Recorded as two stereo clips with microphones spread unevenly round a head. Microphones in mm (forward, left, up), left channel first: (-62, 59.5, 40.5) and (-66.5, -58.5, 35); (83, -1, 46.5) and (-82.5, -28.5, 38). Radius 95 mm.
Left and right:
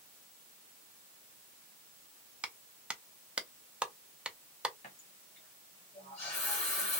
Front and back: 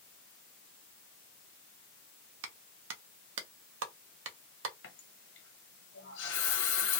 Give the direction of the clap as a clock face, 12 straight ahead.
6 o'clock.